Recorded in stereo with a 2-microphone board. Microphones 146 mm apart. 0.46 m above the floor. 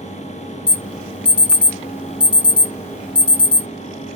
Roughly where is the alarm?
Centre.